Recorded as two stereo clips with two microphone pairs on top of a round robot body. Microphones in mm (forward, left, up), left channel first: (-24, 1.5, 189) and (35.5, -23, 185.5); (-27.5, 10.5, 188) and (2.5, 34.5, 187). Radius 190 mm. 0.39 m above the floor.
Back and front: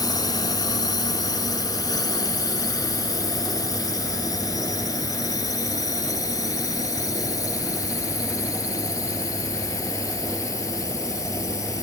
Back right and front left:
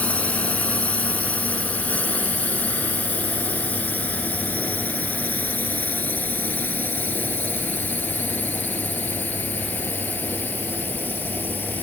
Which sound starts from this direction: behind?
A drone, at 0.0 s.